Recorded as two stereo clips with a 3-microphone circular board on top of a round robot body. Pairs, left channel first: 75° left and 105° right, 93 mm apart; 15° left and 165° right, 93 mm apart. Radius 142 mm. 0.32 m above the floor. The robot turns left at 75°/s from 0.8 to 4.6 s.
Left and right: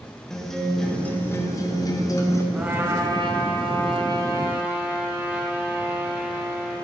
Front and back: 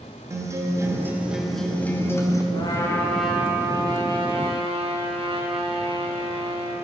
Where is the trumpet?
25° right, 1.5 m; by 6.8 s straight behind, 1.5 m.